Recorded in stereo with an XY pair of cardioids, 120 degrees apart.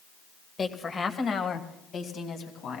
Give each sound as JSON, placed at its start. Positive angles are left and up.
{"t": 0.6, "sound": "a woman speaking", "azimuth_deg": 25, "distance_m": 1.4}